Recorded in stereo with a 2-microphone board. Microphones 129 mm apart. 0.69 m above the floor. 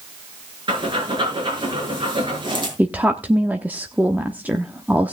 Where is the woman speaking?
10° right (ahead or behind), 1.0 m.